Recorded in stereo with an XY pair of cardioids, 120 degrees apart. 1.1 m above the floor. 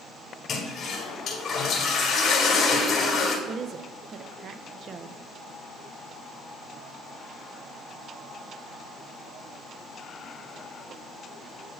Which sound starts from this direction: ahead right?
A woman speaking, at 3.5 s.